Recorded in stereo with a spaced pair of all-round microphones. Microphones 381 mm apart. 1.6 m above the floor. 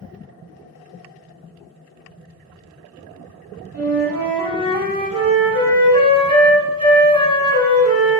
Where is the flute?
55° right (ahead or behind), 1.4 m.